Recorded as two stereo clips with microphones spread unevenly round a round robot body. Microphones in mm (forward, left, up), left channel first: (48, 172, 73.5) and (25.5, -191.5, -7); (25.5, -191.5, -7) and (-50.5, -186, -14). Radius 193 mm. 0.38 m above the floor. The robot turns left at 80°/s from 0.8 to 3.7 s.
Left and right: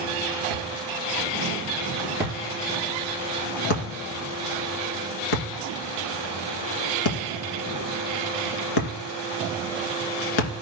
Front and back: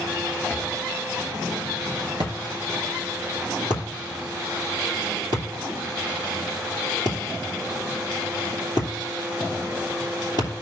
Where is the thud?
65° right, 2.5 m; by 10.6 s 65° left, 2.5 m.